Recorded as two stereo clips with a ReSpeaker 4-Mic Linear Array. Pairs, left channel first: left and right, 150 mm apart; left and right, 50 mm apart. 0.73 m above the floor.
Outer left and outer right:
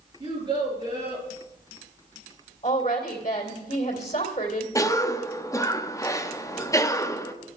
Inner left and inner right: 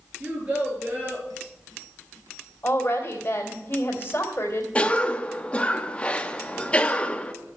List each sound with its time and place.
0.2 s a child speaking: 25° right (ahead or behind), 7 m; by 1.3 s 30° right (ahead or behind), 7 m
2.6 s a woman speaking: 45° left (ahead or behind), 2.5 m
4.8 s a cough: 20° left (ahead or behind), 0.9 m